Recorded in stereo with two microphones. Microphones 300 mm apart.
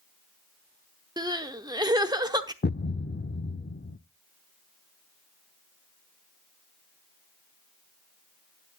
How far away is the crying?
About 0.9 m.